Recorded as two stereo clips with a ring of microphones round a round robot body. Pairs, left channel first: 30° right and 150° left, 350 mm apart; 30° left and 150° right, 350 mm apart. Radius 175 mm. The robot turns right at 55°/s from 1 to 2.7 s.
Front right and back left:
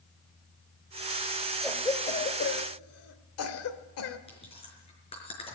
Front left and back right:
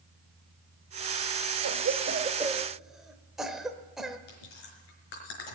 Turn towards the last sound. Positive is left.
turn(degrees=45)